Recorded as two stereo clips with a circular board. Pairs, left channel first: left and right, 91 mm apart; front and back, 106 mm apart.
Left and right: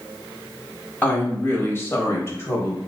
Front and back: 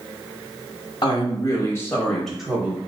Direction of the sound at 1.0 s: 25° left.